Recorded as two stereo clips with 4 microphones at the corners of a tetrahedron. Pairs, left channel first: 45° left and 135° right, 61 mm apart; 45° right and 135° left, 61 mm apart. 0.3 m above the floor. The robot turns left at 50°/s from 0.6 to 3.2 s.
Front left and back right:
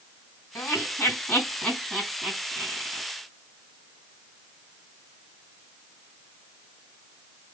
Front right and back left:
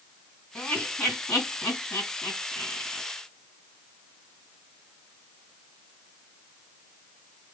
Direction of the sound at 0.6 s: 25° left.